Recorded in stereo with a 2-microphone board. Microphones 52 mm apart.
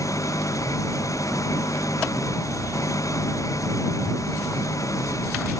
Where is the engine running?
80° left.